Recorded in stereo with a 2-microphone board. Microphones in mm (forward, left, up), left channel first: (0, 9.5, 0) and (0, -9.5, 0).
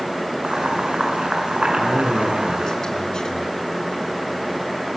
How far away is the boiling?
About 7.5 m.